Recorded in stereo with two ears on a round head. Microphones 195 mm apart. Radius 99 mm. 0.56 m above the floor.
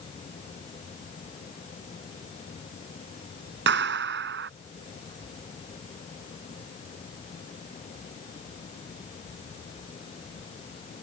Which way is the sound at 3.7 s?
60° right (ahead or behind).